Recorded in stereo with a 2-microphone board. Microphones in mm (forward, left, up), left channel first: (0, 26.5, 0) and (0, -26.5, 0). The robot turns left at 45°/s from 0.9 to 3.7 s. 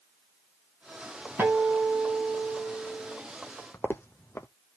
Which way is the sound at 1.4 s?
40° right.